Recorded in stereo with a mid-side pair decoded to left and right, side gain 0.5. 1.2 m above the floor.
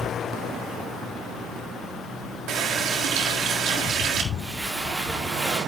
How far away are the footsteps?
About 5 m.